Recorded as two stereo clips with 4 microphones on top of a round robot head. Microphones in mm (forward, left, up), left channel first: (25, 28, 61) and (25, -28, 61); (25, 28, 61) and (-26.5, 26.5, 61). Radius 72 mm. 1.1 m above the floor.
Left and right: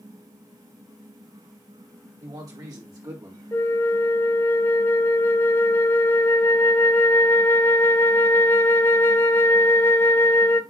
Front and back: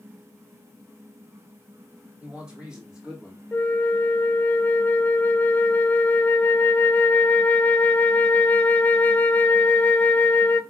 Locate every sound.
2.2 s a man speaking: 105° right, 4 m; by 3.4 s 100° right, 3.5 m
3.5 s a flute: 50° left, 0.5 m